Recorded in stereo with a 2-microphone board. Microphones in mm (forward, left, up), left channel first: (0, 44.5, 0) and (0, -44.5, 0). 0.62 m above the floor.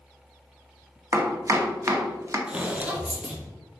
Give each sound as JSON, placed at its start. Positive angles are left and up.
{"t": 1.1, "sound": "chopping", "side_deg": -35, "distance_m": 0.6}
{"t": 2.5, "sound": "footsteps", "side_deg": -10, "distance_m": 0.6}